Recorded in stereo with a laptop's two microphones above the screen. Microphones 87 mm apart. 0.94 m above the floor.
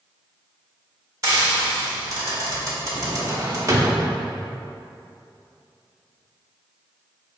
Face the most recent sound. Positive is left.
turn(degrees=-35)  # may be behind; listen again after turning